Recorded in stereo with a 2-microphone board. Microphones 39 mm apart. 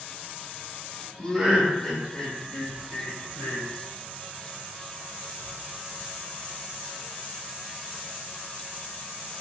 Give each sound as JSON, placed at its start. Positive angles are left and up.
{"t": 1.2, "sound": "laughter", "side_deg": -25, "distance_m": 1.2}